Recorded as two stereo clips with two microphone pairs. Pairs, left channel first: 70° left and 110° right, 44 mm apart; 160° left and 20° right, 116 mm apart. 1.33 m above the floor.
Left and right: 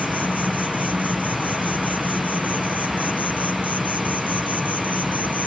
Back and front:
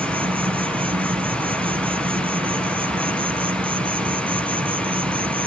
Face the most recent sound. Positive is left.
turn(degrees=20)